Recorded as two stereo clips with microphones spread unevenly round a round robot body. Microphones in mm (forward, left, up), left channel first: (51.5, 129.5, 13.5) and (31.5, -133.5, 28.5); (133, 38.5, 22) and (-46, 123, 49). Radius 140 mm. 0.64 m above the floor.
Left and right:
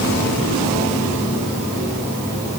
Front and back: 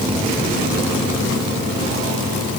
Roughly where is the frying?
No frying in this recording.